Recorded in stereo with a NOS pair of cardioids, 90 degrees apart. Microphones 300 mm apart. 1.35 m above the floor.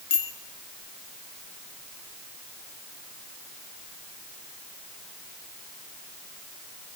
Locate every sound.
0.1 s a bicycle bell: 45° left, 6 m